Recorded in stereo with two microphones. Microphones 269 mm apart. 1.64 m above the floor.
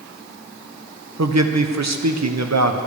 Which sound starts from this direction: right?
A man speaking, at 1.2 s.